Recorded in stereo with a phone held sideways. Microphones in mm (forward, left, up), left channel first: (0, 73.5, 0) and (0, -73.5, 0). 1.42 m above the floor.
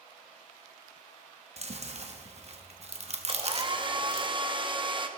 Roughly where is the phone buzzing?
I don't hear a phone buzzing.